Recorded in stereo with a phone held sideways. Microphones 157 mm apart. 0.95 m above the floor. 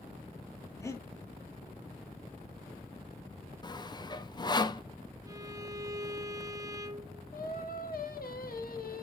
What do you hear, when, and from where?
0.8 s breathing: 20° left (ahead or behind), 1.7 m
3.6 s sawing: 25° left (ahead or behind), 0.7 m
5.3 s a violin: 20° right (ahead or behind), 0.7 m
7.3 s singing: 70° left (ahead or behind), 1.2 m